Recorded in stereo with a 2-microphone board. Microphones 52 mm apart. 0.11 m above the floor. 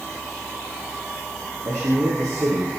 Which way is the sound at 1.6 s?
70° right (ahead or behind).